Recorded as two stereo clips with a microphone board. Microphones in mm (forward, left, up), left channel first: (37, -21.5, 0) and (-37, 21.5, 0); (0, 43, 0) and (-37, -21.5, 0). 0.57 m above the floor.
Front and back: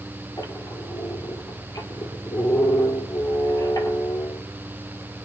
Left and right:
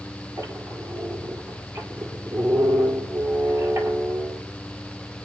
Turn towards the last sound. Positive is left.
turn(degrees=-75)